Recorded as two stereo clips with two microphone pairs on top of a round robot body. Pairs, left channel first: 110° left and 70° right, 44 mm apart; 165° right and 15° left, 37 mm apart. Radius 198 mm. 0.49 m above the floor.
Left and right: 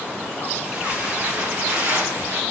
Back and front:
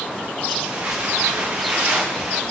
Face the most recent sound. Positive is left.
turn(degrees=-30)